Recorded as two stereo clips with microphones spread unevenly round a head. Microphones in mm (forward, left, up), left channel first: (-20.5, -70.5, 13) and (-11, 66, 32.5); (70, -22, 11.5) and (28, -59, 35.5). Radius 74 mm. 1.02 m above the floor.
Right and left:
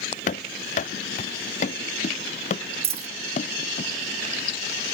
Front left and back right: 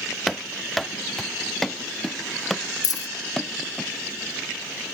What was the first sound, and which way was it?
Running footsteps, 50° right.